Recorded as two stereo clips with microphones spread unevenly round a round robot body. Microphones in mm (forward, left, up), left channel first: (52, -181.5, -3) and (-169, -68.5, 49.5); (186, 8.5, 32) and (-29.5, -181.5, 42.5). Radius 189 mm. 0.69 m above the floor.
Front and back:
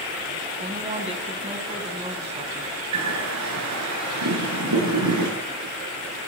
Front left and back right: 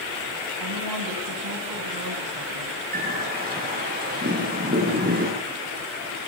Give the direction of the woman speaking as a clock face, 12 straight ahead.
5 o'clock.